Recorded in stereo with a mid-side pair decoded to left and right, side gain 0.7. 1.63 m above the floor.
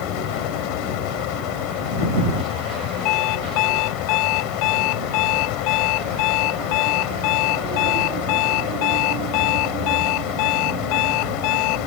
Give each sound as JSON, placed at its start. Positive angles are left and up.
{"t": 0.0, "sound": "a fan", "azimuth_deg": 70}
{"t": 3.0, "sound": "an alarm clock", "azimuth_deg": 65}